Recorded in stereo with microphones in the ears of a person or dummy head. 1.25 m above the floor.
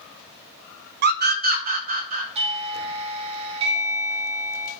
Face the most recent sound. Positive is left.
turn(degrees=-30)  # may be behind; listen again after turning